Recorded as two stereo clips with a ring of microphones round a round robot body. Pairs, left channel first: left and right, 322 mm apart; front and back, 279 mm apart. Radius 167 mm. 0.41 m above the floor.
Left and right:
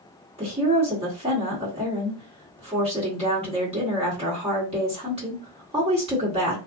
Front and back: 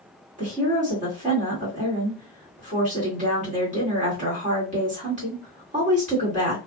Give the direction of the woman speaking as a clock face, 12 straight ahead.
5 o'clock.